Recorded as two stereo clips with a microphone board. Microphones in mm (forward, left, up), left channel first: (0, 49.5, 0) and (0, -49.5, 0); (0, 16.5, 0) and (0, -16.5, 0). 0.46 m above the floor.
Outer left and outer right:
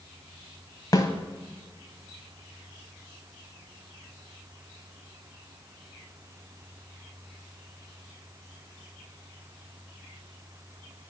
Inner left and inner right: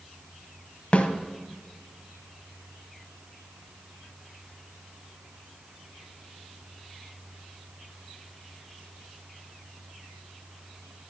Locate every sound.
0.9 s a snare drum: 40° left (ahead or behind), 1.0 m